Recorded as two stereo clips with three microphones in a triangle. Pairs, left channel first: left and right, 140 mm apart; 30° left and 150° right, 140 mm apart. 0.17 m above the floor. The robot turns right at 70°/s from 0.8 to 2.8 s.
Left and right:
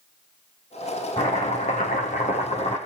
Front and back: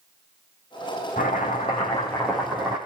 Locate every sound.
1.2 s chopping: 35° left, 6.5 m; by 2.8 s 150° left, 6.5 m